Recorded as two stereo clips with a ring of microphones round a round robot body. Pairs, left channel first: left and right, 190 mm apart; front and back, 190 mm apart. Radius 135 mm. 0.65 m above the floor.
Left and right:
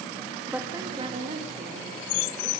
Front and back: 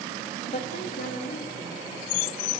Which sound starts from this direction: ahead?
A woman speaking, at 0.5 s.